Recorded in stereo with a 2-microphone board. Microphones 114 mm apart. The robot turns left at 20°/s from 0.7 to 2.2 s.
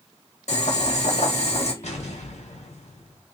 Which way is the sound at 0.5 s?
80° left.